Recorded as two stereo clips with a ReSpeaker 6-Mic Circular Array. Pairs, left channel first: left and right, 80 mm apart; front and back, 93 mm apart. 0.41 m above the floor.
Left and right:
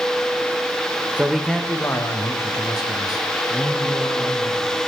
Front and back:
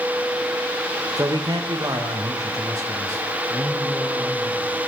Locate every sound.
1.2 s a man speaking: 150° right, 1.0 m; by 4.8 s 120° left, 5.5 m